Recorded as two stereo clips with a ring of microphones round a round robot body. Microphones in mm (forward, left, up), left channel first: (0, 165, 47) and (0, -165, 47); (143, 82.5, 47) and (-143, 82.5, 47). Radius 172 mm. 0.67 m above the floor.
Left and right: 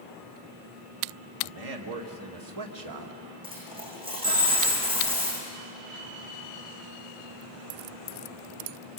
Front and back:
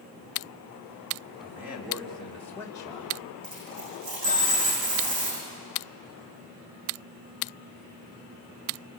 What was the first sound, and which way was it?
A man speaking, 100° right.